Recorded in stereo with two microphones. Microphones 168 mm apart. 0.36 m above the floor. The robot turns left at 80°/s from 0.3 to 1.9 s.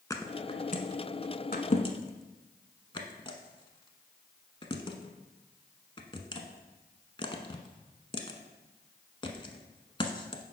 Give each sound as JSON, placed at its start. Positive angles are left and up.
{"t": 0.1, "sound": "a thud", "side_deg": 20, "distance_m": 0.8}